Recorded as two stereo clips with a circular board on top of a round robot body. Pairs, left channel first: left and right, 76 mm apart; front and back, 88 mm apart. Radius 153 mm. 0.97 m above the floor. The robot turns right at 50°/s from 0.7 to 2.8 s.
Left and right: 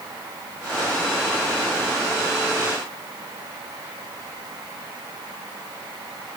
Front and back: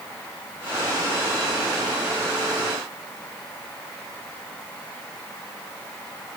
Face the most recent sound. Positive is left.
No sound to turn to.